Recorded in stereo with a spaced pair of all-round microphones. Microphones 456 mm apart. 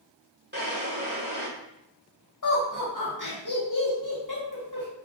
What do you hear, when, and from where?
0.5 s a drawer: 25° right (ahead or behind), 1.1 m
2.4 s laughter: 40° left (ahead or behind), 1.8 m